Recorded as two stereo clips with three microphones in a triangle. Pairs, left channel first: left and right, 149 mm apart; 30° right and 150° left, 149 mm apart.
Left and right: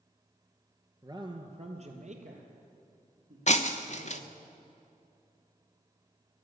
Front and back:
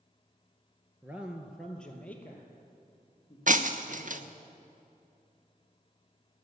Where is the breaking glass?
125° left, 0.9 m.